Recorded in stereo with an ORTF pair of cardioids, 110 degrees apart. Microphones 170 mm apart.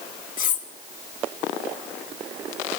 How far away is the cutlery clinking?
About 1.7 m.